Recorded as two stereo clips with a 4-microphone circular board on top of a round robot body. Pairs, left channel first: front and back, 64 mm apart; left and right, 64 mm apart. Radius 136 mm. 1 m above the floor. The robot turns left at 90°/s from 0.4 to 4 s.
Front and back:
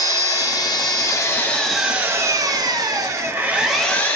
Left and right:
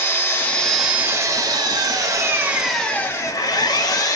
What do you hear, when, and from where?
0.0 s an engine running: 30° left, 0.8 m; by 4.2 s 65° left, 0.8 m